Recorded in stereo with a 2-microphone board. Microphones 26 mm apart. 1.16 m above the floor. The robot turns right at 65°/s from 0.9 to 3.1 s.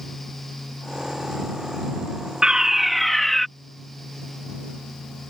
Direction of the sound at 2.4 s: 40° right.